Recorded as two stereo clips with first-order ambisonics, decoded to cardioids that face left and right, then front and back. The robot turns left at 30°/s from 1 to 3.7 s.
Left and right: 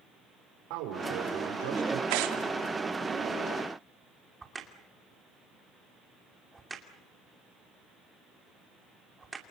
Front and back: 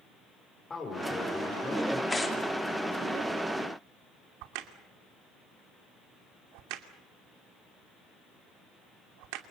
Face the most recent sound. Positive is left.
turn(degrees=-170)